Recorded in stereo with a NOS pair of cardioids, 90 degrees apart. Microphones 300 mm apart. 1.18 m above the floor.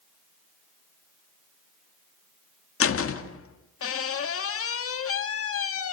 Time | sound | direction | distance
2.8 | a door slam | 45° left | 1.9 m